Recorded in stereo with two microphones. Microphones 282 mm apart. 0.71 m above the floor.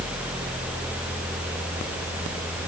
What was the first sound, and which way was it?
Only background noise.